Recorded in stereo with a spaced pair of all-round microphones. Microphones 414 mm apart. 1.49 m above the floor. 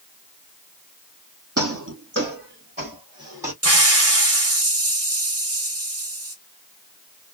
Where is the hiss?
35° right (ahead or behind), 1.2 m.